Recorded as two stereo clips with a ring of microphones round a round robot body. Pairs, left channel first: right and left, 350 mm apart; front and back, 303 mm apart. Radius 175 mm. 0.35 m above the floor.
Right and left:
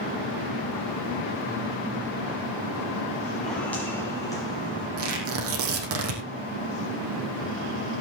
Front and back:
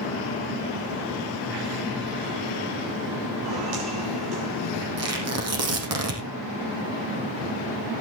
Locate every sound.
3.4 s footsteps: straight behind, 6 m; by 4.9 s 165° right, 7 m
5.0 s tearing paper: 145° left, 5 m